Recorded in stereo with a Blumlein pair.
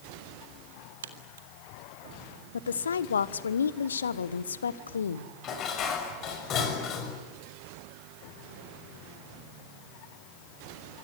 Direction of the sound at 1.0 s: 65° right.